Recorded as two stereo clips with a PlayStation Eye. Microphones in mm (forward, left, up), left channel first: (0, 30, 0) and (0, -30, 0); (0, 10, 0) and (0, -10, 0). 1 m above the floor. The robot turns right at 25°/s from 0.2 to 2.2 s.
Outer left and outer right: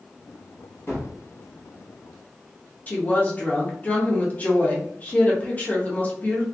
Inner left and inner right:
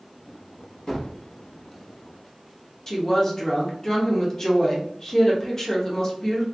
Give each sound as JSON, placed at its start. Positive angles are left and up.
{"t": 0.9, "sound": "a gunshot", "side_deg": 45, "distance_m": 1.2}
{"t": 2.9, "sound": "a woman speaking", "side_deg": 25, "distance_m": 0.8}